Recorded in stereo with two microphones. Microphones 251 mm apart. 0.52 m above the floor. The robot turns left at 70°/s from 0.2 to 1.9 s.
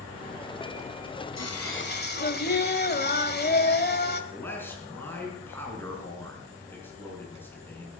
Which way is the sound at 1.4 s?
75° left.